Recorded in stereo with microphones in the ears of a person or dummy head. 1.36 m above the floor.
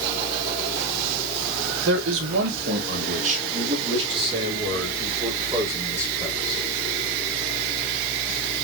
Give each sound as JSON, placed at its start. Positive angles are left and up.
{"t": 1.9, "sound": "a man speaking", "side_deg": -80, "distance_m": 1.6}